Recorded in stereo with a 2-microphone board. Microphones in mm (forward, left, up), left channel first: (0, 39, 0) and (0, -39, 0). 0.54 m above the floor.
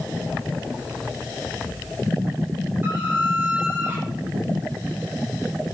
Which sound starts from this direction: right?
A squeak, at 2.8 s.